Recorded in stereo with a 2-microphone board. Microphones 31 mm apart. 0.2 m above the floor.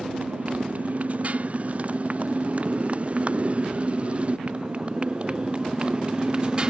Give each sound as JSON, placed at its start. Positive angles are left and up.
{"t": 0.0, "sound": "a motorcycle", "side_deg": -50}